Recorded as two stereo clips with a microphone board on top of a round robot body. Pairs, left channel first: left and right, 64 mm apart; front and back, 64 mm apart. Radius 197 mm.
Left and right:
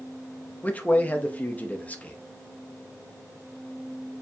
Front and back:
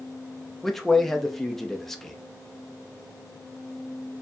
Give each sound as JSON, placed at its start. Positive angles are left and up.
{"t": 0.6, "sound": "a man speaking", "azimuth_deg": 80, "distance_m": 0.9}